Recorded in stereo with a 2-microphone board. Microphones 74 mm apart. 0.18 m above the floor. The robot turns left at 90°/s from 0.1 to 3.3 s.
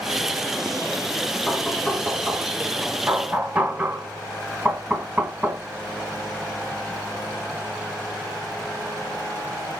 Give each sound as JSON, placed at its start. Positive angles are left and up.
{"t": 1.5, "sound": "knocking", "side_deg": 10, "distance_m": 0.9}